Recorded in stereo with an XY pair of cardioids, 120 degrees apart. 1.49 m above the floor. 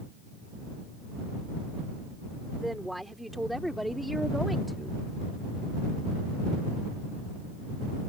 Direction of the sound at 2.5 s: Straight ahead.